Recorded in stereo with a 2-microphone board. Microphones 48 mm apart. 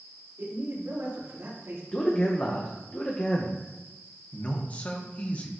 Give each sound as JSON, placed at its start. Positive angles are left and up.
{"t": 0.4, "sound": "a man speaking", "side_deg": -60, "distance_m": 3.5}
{"t": 1.9, "sound": "a man speaking", "side_deg": 25, "distance_m": 0.8}
{"t": 4.3, "sound": "a man speaking", "side_deg": 30, "distance_m": 1.0}